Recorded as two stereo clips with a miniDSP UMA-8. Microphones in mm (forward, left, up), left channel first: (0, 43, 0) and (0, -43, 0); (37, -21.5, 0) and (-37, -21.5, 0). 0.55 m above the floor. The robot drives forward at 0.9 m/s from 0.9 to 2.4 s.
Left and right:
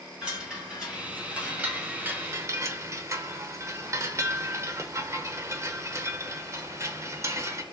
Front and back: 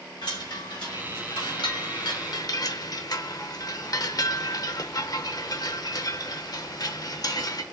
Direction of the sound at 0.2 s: 10° right.